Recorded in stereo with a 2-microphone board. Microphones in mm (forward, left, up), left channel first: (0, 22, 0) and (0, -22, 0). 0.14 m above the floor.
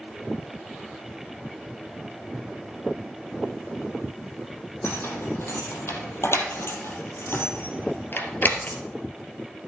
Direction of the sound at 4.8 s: 75° left (ahead or behind).